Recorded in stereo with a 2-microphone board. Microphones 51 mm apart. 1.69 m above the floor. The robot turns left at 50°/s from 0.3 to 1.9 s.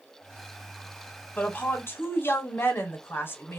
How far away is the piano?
No piano in this recording.